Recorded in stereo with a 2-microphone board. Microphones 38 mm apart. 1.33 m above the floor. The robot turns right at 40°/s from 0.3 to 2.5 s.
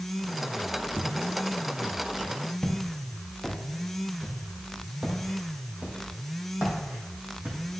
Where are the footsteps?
10° right (ahead or behind), 1.7 m; by 7.6 s 45° right (ahead or behind), 3.5 m.